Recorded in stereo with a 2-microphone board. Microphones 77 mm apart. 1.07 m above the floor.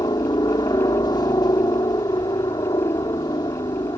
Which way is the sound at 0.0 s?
65° left (ahead or behind).